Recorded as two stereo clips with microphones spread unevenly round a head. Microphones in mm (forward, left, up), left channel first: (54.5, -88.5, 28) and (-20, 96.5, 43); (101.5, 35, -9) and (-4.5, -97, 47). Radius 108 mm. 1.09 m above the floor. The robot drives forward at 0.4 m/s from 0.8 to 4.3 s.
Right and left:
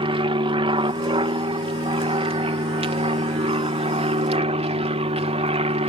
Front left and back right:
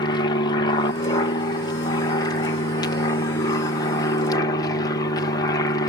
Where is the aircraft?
60° left; by 5.9 s 65° left.